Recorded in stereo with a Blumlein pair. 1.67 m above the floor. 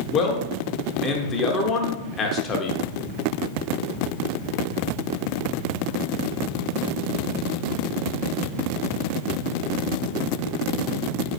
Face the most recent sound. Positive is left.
turn(degrees=25)